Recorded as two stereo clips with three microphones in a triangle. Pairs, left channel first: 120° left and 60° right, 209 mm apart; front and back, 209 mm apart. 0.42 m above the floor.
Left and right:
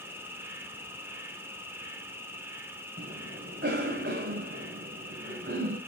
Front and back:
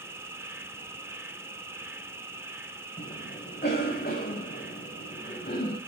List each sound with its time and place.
0.0 s an insect: 120° right, 2 m
3.0 s a cough: 40° right, 1.9 m